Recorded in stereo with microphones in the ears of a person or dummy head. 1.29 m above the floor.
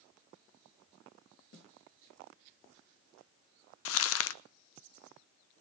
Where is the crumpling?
70° left (ahead or behind), 0.8 m.